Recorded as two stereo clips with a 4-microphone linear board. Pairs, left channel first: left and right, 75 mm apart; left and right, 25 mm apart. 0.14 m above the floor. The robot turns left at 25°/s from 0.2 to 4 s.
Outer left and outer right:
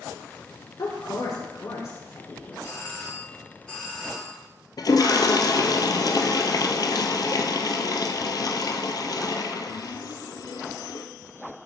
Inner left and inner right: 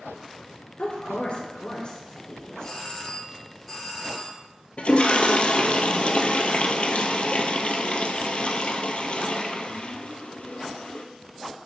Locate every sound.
0.8 s a woman speaking: 60° left (ahead or behind), 2 m; by 2.9 s 35° left (ahead or behind), 2 m
2.6 s a doorbell: 40° left, 2 m; by 4.4 s 5° left, 2 m
4.8 s a toilet flushing: 60° left (ahead or behind), 0.6 m